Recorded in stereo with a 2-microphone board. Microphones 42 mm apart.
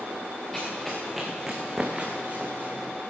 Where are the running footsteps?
5° left (ahead or behind), 3.5 m; by 2.9 s 50° right (ahead or behind), 2.5 m.